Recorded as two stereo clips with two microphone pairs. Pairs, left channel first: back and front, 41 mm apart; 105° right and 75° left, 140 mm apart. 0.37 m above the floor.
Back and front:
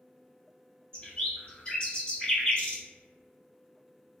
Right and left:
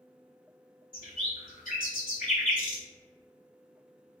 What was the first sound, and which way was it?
A bird, 120° right.